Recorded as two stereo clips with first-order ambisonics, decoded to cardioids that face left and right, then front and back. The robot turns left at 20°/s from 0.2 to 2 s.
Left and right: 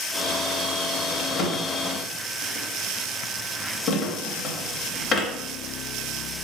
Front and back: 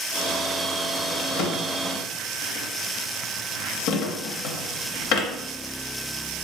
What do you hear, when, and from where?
1.2 s a drawer: 40° left, 0.5 m; by 5.3 s 25° left, 0.5 m